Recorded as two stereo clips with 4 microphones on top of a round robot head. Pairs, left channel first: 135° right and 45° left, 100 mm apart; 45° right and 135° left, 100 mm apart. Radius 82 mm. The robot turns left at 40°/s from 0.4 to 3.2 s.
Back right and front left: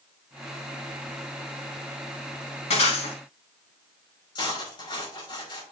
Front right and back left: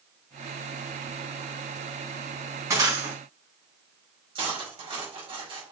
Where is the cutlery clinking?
175° left, 4.5 m.